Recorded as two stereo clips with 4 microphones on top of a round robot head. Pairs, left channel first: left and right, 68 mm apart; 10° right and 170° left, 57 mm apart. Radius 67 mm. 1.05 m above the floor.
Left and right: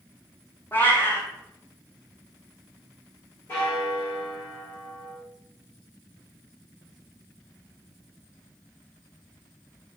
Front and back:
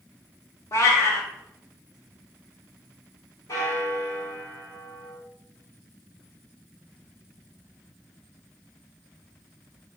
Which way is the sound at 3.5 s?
25° left.